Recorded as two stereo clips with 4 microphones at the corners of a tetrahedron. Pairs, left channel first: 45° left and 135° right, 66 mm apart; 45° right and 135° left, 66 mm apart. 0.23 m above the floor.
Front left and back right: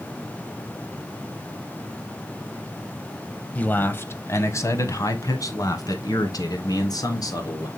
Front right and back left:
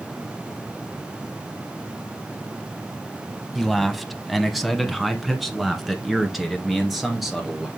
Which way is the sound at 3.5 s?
40° left.